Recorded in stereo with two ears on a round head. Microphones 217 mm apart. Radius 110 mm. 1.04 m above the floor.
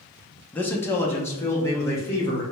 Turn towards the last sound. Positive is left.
turn(degrees=10)  # may be behind; listen again after turning